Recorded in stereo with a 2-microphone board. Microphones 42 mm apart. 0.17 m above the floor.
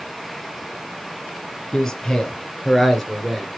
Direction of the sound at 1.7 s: 15° left (ahead or behind).